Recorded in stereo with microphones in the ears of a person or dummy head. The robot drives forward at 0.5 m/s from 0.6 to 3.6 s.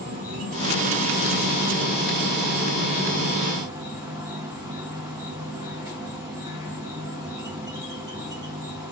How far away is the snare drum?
No snare drum in this recording.